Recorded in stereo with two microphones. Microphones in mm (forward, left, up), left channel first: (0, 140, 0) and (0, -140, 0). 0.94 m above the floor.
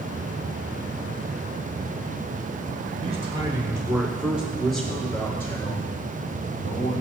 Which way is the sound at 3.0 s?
25° right (ahead or behind).